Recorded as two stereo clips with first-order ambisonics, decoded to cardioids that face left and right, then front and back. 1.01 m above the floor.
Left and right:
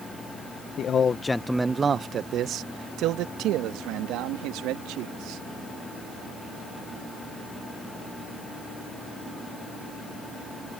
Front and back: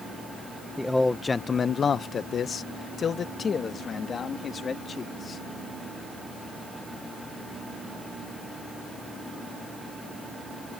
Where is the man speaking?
85° left; by 5.4 s 65° right.